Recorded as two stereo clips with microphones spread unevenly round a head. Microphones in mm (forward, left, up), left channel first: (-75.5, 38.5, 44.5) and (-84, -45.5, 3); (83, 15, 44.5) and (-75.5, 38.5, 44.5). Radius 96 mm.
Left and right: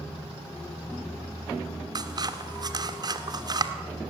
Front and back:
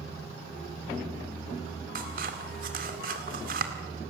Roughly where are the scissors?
Behind right.